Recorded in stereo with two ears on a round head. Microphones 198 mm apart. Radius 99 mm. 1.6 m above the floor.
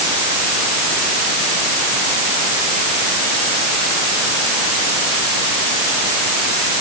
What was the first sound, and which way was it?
Only background noise.